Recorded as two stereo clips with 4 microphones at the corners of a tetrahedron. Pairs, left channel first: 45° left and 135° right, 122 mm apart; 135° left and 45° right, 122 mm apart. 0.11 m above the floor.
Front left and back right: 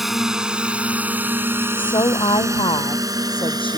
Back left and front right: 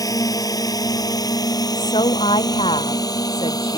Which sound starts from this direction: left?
A woman speaking, at 1.8 s.